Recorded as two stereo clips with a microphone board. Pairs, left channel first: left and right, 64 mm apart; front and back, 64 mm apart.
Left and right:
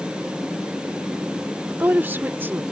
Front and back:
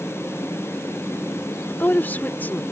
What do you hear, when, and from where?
1.7 s a woman speaking: 45° right